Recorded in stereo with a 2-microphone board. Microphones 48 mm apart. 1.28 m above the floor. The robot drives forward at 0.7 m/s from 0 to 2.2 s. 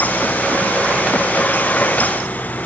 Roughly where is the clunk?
No clunk in this recording.